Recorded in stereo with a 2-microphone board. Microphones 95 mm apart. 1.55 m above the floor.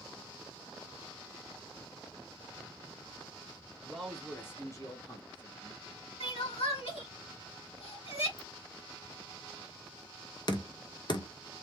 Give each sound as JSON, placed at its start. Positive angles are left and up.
{"t": 3.8, "sound": "a man speaking", "side_deg": -5, "distance_m": 1.2}
{"t": 6.2, "sound": "crying", "side_deg": 80, "distance_m": 2.0}
{"t": 8.4, "sound": "a ringtone", "side_deg": -5, "distance_m": 1.8}
{"t": 10.5, "sound": "knocking", "side_deg": 50, "distance_m": 0.7}